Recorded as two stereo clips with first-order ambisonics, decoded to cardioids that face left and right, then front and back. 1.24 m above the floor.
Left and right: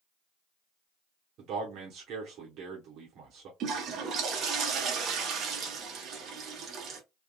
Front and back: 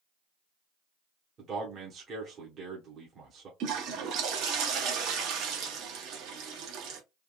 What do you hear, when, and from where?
1.4 s a man speaking: 125° right, 1.0 m
3.6 s a toilet flushing: 145° right, 0.9 m